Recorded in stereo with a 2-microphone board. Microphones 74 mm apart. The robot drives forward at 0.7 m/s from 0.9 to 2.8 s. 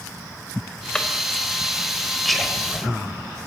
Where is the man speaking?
Centre (ahead or behind), 6 m.